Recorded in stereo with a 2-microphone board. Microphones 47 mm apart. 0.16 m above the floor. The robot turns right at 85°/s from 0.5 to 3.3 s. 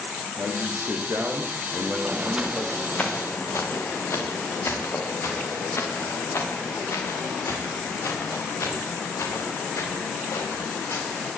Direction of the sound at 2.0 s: 55° right (ahead or behind).